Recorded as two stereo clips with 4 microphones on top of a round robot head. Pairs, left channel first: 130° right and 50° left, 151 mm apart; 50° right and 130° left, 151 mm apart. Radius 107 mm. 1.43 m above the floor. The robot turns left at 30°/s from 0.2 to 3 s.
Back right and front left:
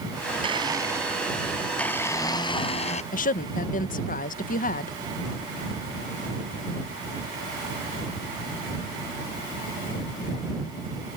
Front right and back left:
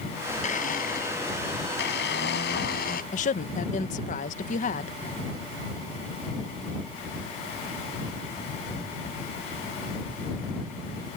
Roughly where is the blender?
Ahead.